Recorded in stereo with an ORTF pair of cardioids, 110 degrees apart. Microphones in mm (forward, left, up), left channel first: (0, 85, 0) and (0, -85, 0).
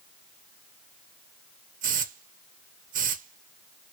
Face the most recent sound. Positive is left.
turn(degrees=-50)